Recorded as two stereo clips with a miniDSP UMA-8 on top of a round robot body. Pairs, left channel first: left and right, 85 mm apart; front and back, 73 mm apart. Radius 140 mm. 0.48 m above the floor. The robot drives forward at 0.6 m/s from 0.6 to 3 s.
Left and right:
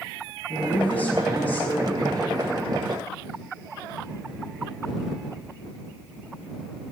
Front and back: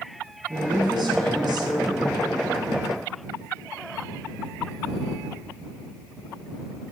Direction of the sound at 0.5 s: 160° left.